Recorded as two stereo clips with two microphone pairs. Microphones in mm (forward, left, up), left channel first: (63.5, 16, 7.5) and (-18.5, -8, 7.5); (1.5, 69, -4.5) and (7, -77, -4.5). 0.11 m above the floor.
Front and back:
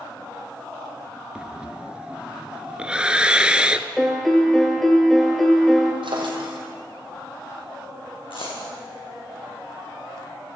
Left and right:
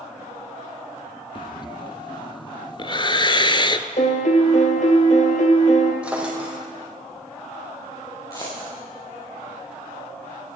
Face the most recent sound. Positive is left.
turn(degrees=25)